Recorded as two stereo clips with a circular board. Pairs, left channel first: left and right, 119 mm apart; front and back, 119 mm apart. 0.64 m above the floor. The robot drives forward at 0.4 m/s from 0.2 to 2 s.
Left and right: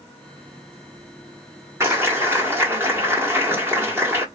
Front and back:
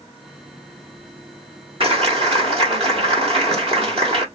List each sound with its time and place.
1.8 s a clap: 160° right, 1.3 m